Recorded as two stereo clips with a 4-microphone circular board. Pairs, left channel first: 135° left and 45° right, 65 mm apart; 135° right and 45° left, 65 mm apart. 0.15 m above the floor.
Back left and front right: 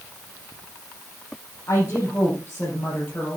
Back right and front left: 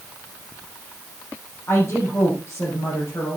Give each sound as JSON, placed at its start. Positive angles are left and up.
{"t": 1.7, "sound": "a woman speaking", "azimuth_deg": 180, "distance_m": 5.5}